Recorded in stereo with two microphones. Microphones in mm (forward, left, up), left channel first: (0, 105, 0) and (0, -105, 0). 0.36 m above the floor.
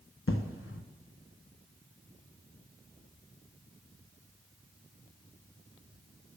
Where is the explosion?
80° left, 0.9 m.